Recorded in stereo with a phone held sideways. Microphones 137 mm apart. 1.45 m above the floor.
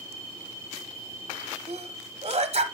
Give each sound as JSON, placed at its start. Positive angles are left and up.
{"t": 1.7, "sound": "a sneeze", "side_deg": -45, "distance_m": 0.9}